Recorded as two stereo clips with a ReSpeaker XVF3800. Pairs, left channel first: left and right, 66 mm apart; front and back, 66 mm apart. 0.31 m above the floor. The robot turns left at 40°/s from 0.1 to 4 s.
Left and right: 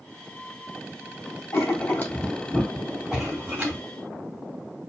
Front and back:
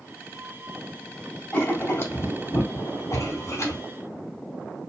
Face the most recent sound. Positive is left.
turn(degrees=-50)